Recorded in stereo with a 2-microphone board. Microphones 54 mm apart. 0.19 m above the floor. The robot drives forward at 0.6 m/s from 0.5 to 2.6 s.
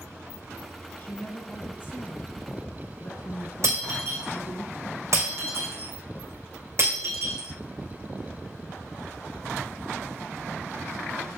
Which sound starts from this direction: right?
Breaking glass, at 3.6 s.